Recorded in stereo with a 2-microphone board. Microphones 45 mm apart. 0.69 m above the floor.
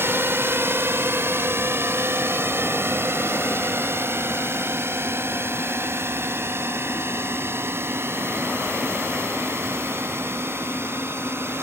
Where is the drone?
60° right (ahead or behind).